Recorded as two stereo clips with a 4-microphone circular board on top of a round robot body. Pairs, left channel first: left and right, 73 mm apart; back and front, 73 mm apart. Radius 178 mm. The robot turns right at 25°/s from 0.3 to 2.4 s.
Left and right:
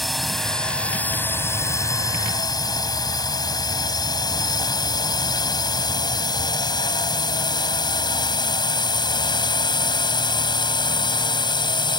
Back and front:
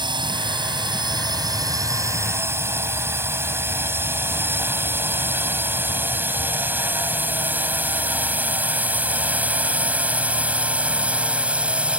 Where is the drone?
Straight ahead; by 12.0 s 75° left.